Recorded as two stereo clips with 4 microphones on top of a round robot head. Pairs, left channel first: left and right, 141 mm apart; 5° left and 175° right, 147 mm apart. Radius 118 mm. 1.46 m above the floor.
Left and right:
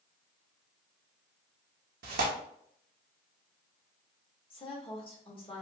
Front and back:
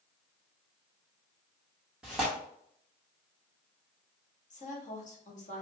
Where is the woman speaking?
40° left, 1.5 m.